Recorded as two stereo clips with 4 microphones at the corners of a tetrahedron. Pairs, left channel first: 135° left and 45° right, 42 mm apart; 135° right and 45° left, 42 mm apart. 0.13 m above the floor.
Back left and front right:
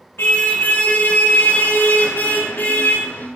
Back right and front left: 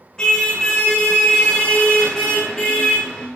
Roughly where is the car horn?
Behind left.